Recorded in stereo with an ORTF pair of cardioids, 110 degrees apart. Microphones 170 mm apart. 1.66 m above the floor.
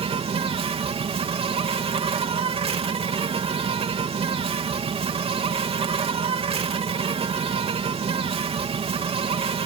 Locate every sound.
0.0 s an insect: 35° right